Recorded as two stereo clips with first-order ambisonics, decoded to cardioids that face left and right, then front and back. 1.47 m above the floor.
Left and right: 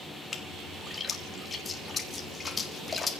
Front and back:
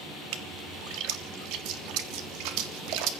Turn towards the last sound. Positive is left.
turn(degrees=165)